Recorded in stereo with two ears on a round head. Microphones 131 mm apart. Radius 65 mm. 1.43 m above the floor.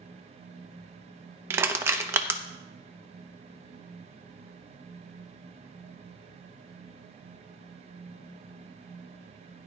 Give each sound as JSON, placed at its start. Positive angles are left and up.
{"t": 1.5, "sound": "crushing", "side_deg": -20, "distance_m": 0.7}